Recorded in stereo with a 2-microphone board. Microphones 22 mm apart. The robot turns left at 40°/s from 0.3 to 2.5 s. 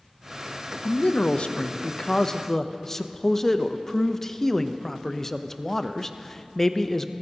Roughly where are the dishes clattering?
No dishes clattering in this recording.